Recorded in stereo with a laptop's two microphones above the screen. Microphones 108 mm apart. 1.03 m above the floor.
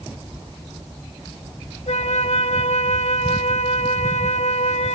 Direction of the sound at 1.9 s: 75° left (ahead or behind).